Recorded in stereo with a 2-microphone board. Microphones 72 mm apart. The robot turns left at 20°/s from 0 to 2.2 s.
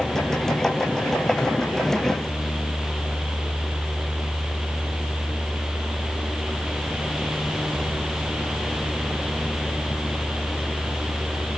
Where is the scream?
No scream in this recording.